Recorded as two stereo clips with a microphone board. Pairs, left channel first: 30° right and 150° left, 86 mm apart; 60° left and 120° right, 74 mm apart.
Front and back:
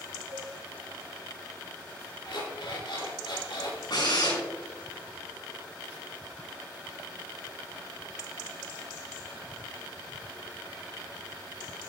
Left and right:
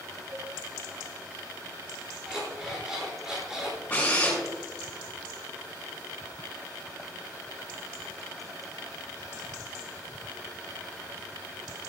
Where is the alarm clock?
40° right, 6 m.